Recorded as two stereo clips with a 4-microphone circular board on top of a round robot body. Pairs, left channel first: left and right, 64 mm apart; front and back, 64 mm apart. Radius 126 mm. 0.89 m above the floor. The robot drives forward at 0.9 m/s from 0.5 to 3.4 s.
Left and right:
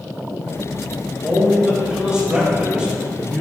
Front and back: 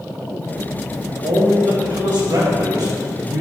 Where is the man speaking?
165° right, 4.5 m; by 3.4 s 170° right, 6 m.